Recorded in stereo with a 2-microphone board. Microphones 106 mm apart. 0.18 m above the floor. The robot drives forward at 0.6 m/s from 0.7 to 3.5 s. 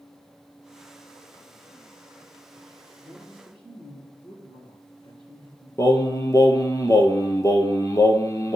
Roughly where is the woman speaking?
Left.